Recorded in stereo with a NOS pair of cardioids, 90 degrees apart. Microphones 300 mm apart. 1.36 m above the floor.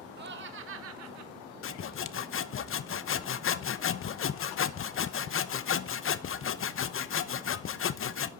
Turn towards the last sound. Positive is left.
turn(degrees=45)